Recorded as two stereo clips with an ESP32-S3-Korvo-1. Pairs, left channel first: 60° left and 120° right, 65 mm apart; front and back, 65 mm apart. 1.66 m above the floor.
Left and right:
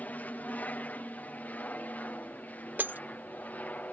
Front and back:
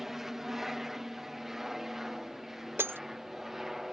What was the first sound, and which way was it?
An aircraft, 100° left.